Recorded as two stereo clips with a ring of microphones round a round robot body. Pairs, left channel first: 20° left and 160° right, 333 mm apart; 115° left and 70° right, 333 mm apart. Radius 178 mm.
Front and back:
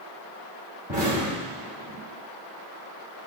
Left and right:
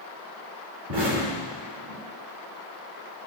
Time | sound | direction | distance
0.9 | an explosion | 90° right | 2.5 m